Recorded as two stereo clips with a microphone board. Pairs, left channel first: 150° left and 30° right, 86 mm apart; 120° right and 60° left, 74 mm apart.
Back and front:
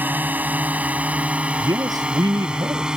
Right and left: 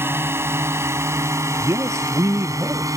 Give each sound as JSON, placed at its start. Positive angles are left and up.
{"t": 0.0, "sound": "a drone", "azimuth_deg": 25}
{"t": 1.6, "sound": "a man speaking", "azimuth_deg": 10}